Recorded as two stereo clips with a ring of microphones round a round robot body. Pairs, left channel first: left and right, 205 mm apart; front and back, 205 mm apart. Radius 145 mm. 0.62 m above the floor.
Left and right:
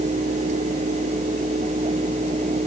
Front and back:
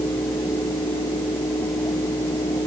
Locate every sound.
Only background noise.